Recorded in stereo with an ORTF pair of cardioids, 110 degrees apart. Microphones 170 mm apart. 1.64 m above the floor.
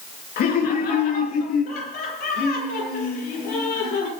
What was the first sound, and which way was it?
Laughter, 70° left.